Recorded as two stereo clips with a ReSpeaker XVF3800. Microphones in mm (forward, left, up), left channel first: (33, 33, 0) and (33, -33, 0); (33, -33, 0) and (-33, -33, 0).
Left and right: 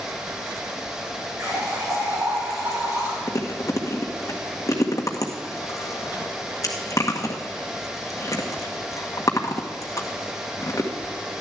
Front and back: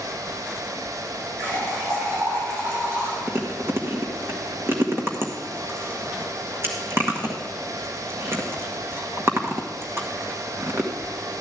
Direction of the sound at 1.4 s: 130° right.